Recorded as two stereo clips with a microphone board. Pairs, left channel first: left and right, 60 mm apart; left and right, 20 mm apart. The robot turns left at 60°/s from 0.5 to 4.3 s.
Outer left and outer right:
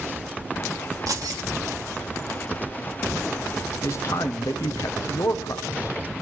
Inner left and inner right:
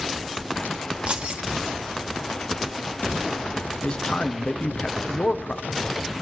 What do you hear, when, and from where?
1.1 s keys jangling: 65° right (ahead or behind), 1.6 m; by 1.4 s 80° right, 1.6 m
3.8 s a man speaking: 45° left (ahead or behind), 0.9 m; by 6.1 s 65° left (ahead or behind), 0.9 m